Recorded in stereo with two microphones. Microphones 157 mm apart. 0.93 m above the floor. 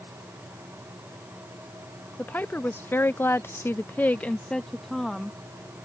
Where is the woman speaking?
10° left (ahead or behind); by 5.4 s centre (ahead or behind).